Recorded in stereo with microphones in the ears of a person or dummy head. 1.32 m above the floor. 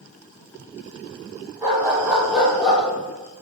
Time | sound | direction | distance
1.6 | a dog barking | 20° right (ahead or behind) | 3 m